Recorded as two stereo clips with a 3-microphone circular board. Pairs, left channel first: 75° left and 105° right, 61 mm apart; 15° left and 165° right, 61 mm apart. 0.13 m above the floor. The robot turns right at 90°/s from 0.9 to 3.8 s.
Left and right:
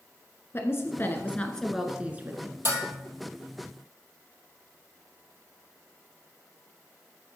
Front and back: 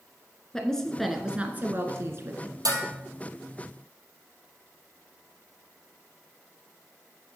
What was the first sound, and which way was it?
A woman speaking, 95° left.